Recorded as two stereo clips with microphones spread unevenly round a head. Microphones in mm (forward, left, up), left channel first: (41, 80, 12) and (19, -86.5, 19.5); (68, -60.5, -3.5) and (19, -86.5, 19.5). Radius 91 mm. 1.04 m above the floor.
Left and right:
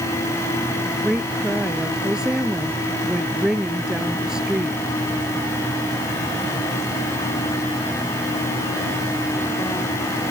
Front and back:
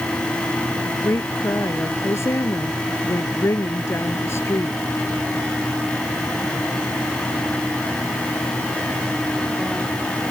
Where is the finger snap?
No finger snap in this recording.